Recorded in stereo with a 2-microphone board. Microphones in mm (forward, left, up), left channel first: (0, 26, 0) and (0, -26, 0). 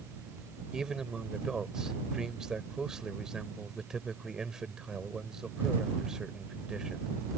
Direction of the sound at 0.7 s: 10° right (ahead or behind).